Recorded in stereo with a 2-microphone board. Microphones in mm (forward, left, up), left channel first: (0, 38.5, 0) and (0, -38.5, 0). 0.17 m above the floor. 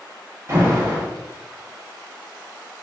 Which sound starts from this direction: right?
An alarm, at 0.5 s.